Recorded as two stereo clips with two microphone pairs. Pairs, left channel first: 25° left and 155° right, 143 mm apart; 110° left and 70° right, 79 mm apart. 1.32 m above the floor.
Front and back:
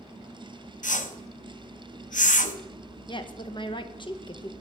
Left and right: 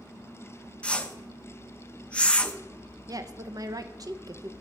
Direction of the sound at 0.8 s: 35° left.